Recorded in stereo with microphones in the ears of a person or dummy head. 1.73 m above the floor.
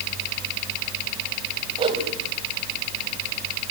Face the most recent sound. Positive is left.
turn(degrees=-35)  # may be behind; listen again after turning